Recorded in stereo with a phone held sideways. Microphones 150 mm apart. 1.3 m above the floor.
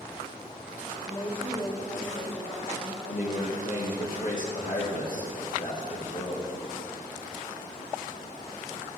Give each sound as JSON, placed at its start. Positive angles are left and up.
{"t": 1.0, "sound": "a woman speaking", "side_deg": 35, "distance_m": 3.5}
{"t": 3.0, "sound": "a man speaking", "side_deg": 60, "distance_m": 1.5}